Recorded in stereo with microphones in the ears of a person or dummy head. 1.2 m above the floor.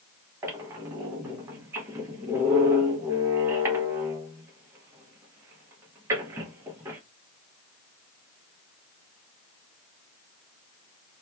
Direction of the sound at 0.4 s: 20° right (ahead or behind).